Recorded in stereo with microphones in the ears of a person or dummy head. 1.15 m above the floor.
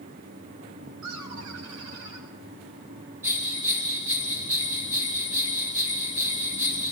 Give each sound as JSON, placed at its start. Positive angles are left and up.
{"t": 1.0, "sound": "laughter", "side_deg": -90, "distance_m": 6.0}
{"t": 3.2, "sound": "a bell", "side_deg": -10, "distance_m": 1.2}